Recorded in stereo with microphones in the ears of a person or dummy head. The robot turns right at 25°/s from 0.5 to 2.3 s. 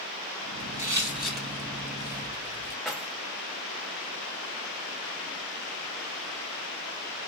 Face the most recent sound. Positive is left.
turn(degrees=0)  # may be behind; listen again after turning